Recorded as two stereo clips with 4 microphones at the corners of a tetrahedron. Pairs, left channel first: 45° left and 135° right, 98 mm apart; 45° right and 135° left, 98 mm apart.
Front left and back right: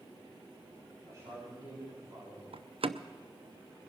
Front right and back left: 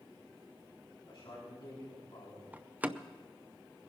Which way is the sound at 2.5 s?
150° right.